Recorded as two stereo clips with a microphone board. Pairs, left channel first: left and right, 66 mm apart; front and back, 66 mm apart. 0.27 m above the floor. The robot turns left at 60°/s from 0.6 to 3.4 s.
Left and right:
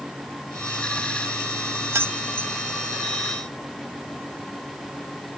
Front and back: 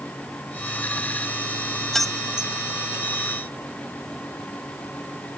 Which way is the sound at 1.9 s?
85° right.